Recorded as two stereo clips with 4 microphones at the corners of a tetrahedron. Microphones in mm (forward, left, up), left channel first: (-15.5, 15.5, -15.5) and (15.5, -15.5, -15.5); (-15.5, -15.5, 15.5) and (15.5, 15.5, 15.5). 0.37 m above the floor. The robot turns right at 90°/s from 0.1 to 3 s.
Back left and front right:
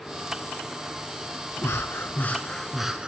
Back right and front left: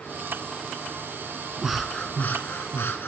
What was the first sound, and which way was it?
Breathing, 125° left.